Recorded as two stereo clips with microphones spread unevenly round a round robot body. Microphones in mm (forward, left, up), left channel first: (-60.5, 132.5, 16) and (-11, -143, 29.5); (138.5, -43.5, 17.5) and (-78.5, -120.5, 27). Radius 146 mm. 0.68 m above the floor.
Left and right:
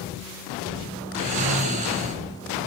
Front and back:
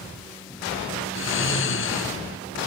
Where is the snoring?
15° right, 3.5 m.